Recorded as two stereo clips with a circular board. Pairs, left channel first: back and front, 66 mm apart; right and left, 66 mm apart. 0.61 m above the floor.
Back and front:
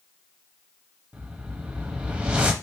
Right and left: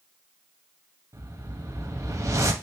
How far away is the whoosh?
About 0.6 m.